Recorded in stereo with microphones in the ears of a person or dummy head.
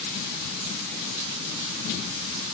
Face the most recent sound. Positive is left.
No sound to turn to.